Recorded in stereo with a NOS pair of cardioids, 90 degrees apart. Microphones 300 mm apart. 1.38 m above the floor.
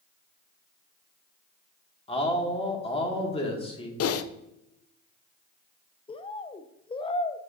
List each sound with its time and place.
2.1 s a man speaking: 20° left, 2.5 m
4.0 s typing on a keyboard: 50° left, 0.6 m
6.1 s a bird: 15° left, 0.6 m